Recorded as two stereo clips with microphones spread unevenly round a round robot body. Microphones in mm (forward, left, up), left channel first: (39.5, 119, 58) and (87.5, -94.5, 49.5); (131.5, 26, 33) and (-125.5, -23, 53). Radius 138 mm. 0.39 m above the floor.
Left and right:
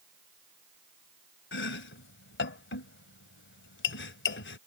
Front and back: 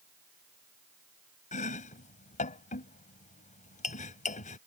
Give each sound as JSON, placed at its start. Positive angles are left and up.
{"t": 1.5, "sound": "chopping", "azimuth_deg": 70}